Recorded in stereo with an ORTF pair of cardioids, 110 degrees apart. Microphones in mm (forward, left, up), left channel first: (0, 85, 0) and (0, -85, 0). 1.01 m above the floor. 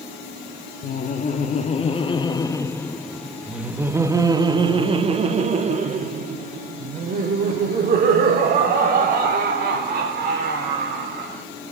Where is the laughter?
50° left, 1.8 m; by 11.4 s 65° right, 5 m.